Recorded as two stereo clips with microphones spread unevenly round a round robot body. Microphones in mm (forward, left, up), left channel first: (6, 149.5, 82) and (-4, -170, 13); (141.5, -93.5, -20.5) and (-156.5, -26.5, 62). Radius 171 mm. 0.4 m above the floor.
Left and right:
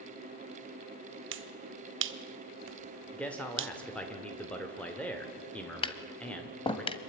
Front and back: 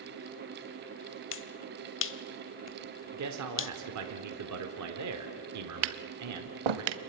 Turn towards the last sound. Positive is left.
turn(degrees=165)